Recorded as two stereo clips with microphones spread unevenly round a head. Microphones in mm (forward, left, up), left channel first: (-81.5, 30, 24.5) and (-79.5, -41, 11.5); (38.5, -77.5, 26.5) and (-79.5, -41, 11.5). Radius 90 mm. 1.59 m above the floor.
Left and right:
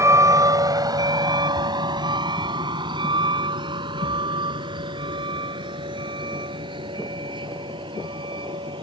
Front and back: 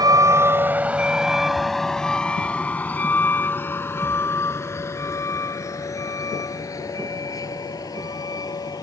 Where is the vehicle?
135° right; by 8.8 s 75° right.